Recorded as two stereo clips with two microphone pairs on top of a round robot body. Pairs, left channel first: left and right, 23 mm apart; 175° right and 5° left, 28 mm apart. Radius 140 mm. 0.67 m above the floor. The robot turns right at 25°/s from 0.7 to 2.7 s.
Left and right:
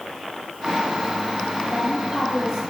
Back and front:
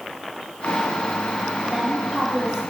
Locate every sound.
1.7 s a woman speaking: 50° right, 1.1 m; by 2.6 s 25° right, 1.1 m